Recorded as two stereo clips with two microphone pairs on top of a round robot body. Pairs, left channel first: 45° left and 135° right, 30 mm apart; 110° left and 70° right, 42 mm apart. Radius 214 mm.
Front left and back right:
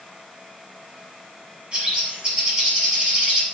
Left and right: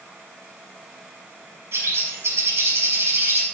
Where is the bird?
80° right, 6.5 m.